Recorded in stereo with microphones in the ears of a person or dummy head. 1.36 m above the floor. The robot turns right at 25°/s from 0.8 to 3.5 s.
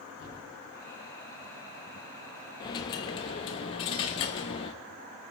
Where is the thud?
35° left (ahead or behind), 4.5 m.